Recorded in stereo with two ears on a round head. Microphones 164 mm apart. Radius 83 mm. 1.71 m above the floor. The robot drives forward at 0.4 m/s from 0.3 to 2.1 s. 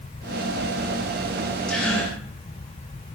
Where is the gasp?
5° left (ahead or behind), 5.5 m.